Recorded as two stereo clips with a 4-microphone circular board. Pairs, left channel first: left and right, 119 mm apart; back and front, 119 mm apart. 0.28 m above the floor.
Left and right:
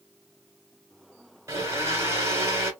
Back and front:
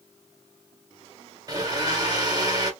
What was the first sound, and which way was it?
A blender, 35° right.